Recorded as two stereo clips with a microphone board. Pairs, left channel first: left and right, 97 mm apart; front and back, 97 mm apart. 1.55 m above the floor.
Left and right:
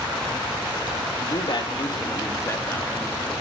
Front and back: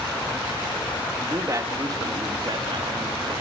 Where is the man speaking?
115° left, 3 m; by 3.3 s 165° left, 4 m.